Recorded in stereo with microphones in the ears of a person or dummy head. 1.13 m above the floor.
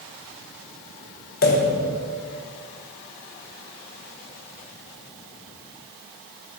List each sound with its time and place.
1.4 s a pop: 50° left (ahead or behind), 1.4 m